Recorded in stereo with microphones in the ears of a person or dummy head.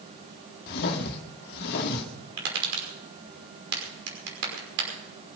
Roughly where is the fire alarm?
No fire alarm in this recording.